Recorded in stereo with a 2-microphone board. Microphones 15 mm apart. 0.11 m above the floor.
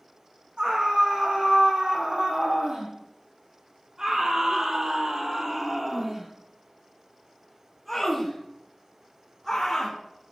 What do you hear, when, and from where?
0.6 s a scream: 75° right (ahead or behind), 4.5 m; by 10.0 s 20° left (ahead or behind), 4 m